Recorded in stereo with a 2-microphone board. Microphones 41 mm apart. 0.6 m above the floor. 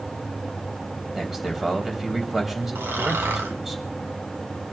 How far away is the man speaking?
About 3.5 m.